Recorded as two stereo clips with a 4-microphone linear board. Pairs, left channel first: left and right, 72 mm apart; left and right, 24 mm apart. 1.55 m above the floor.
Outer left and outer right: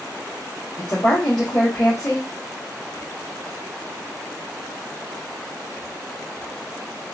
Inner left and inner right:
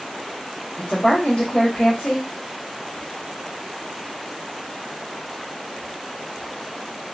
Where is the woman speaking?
70° left (ahead or behind), 1.1 m.